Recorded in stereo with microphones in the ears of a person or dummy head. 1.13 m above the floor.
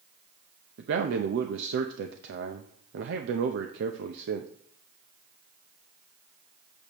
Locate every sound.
0.8 s a man speaking: 70° right (ahead or behind), 0.7 m